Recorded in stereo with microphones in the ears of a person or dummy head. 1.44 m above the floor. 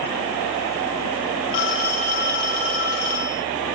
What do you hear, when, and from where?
1.5 s a phone ringing: 65° left (ahead or behind), 3.5 m